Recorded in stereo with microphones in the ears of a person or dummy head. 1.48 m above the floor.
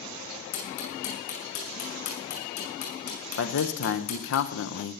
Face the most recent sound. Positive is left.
turn(degrees=70)  # may be behind; listen again after turning